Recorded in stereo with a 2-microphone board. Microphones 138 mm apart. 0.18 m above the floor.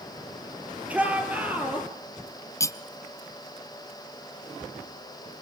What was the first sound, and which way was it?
A shout, 10° right (ahead or behind).